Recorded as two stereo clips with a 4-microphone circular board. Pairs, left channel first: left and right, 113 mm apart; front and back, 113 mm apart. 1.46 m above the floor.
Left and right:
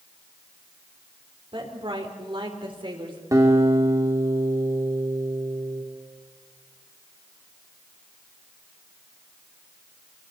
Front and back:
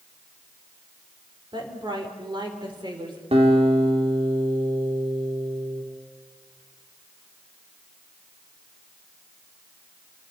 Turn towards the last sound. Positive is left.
turn(degrees=-150)